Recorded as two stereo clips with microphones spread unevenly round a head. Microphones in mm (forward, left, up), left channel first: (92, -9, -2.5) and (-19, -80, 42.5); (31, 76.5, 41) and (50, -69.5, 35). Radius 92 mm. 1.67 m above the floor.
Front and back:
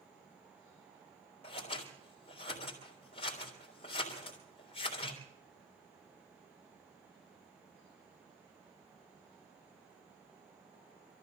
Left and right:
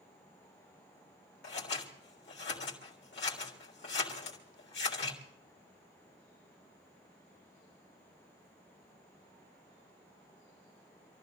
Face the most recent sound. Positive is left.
turn(degrees=100)